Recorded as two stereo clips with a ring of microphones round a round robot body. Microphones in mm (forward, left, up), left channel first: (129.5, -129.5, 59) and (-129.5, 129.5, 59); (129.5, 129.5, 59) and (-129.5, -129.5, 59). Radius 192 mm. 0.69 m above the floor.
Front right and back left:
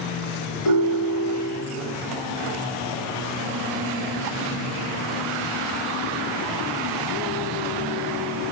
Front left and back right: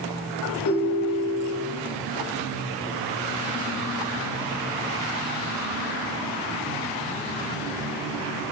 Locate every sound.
0.7 s a ringtone: 5° right, 2.5 m